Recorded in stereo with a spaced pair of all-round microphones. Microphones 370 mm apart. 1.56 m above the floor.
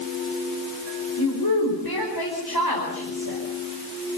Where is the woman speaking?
75° left (ahead or behind), 5 m.